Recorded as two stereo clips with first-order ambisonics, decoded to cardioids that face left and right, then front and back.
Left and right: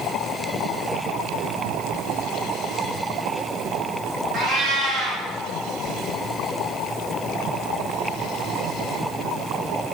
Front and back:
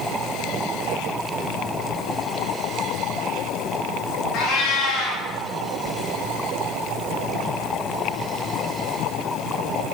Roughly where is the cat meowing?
Ahead right.